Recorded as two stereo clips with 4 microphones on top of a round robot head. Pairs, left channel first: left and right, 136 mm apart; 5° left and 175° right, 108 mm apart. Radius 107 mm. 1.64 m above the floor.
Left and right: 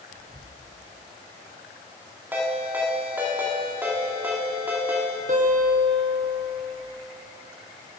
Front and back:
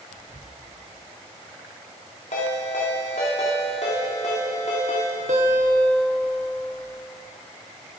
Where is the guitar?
140° right, 1.2 m.